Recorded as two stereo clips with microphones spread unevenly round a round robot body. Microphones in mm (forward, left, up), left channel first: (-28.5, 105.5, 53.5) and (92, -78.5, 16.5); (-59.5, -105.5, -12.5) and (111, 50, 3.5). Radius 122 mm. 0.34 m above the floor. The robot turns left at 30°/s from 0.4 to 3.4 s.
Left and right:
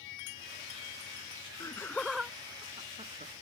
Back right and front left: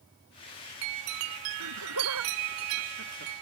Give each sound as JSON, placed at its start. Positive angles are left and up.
{"t": 1.6, "sound": "laughter", "azimuth_deg": 50}